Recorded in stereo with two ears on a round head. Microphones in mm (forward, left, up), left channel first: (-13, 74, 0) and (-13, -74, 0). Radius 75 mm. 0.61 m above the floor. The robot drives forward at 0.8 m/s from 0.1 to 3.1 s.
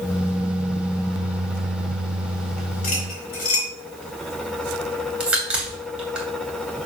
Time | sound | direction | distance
2.8 | cutlery clinking | 55° left (ahead or behind) | 4 m
5.2 | a crack | 5° right (ahead or behind) | 2.5 m